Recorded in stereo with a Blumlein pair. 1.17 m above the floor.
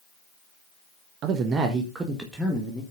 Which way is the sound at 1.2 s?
35° right.